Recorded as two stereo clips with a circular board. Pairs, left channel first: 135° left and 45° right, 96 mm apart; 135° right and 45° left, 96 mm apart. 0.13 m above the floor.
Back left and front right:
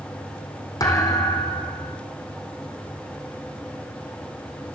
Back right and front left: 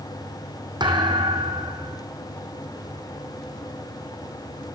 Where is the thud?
85° left, 3.5 m.